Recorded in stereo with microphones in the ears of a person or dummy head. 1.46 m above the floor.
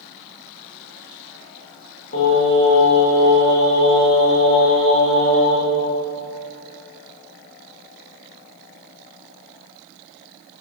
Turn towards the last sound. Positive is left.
turn(degrees=70)  # may be behind; listen again after turning